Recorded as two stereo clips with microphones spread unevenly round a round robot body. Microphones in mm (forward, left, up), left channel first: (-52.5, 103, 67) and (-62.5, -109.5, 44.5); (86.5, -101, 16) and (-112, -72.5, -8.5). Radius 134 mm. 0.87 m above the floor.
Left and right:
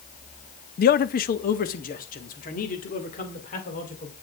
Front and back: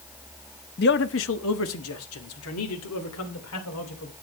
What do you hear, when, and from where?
0.8 s a man speaking: 40° left, 0.5 m; by 4.1 s 25° left, 3 m